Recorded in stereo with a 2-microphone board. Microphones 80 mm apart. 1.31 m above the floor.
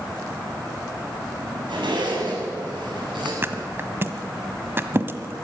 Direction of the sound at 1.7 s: 85° right.